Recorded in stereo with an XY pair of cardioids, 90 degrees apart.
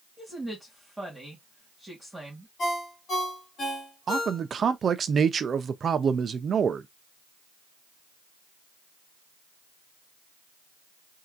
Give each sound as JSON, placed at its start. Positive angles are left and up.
{"t": 0.2, "sound": "a woman speaking", "azimuth_deg": -5, "distance_m": 1.9}
{"t": 2.6, "sound": "a ringtone", "azimuth_deg": 50, "distance_m": 2.5}
{"t": 4.1, "sound": "a man speaking", "azimuth_deg": -50, "distance_m": 0.6}